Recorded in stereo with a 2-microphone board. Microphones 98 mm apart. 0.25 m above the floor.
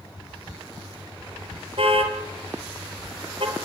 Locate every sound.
1.8 s a car horn: 70° right (ahead or behind), 3 m; by 3.6 s 60° right (ahead or behind), 3.5 m